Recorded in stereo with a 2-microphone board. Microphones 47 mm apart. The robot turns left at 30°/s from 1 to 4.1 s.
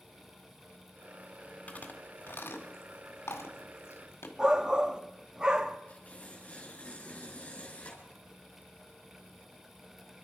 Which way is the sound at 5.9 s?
35° left (ahead or behind).